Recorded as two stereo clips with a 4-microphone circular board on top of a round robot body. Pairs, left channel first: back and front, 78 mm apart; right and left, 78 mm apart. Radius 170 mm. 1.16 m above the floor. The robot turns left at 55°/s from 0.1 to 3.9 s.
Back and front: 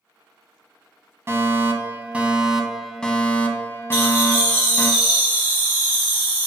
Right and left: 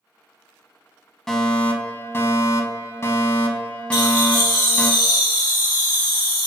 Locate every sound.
1.3 s a fire alarm: 10° right, 1.0 m; by 4.9 s 155° right, 1.0 m
3.9 s laughter: 65° right, 1.9 m